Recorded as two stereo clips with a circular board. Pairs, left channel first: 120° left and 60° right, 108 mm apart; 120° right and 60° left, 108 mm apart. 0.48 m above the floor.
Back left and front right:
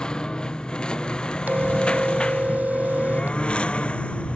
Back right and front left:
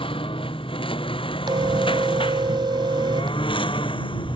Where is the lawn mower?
155° right; by 4.3 s 160° right.